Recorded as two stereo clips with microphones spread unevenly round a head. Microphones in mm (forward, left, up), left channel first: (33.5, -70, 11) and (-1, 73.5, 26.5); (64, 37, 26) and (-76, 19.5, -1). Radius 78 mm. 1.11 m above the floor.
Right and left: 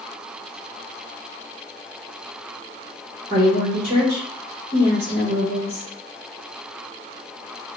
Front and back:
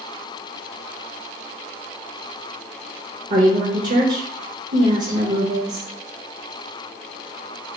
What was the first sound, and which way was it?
A woman speaking, 155° left.